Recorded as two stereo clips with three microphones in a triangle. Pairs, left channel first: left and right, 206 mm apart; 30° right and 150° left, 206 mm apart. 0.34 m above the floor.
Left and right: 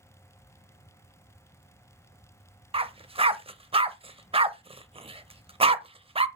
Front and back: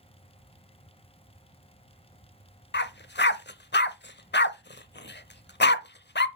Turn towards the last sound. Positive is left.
turn(degrees=-30)